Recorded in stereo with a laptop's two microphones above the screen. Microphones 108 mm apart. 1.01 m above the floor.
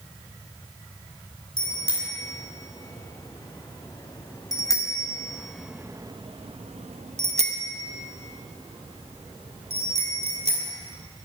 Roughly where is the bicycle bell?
Left.